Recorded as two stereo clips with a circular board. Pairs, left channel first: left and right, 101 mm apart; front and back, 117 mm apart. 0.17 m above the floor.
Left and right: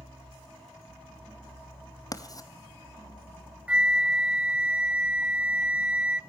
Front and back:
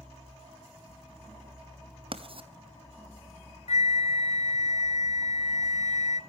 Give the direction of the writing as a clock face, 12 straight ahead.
7 o'clock.